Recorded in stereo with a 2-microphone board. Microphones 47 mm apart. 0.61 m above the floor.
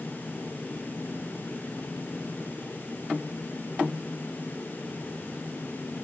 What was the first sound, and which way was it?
Only background noise.